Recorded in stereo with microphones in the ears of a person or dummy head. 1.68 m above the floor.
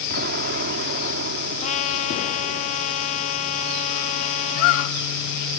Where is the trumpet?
45° left (ahead or behind).